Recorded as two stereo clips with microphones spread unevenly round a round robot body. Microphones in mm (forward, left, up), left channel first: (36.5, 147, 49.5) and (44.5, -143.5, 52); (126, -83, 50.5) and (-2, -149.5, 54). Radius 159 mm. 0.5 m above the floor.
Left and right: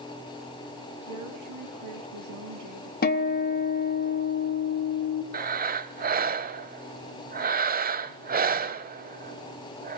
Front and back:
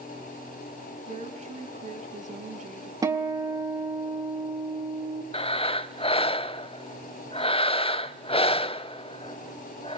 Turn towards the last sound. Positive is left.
turn(degrees=-25)